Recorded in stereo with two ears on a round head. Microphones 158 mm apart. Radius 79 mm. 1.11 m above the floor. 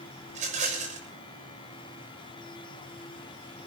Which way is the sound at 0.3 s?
40° right (ahead or behind).